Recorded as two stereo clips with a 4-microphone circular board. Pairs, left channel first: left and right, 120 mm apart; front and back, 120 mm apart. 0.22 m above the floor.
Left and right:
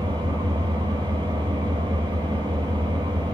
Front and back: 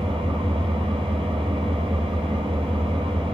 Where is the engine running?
135° right, 4 m.